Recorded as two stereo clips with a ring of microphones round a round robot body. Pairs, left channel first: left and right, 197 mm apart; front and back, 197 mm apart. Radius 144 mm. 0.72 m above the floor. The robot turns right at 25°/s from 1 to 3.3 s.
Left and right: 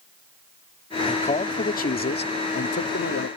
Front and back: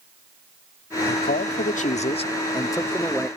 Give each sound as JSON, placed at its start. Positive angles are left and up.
{"t": 1.1, "sound": "a man speaking", "azimuth_deg": 30}